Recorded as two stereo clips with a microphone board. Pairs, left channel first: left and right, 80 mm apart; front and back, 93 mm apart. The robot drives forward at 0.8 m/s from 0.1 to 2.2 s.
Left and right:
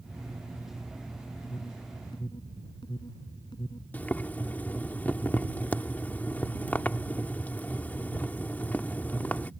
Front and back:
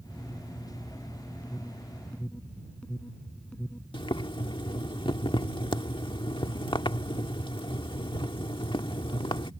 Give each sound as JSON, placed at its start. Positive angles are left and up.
{"t": 1.4, "sound": "an alarm", "azimuth_deg": 75}
{"t": 3.9, "sound": "boiling", "azimuth_deg": 20}